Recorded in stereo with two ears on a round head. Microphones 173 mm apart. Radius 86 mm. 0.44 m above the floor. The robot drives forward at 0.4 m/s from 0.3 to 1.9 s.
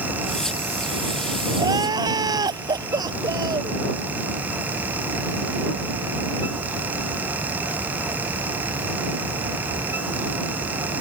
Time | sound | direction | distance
1.6 | crying | 20° right (ahead or behind) | ?